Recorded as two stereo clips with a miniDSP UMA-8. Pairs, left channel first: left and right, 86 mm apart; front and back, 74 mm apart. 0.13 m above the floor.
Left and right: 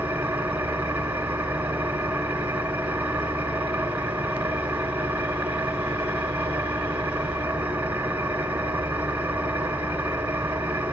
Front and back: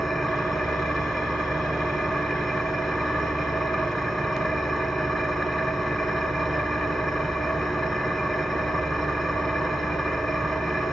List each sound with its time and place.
0.0 s an engine running: 95° right, 0.9 m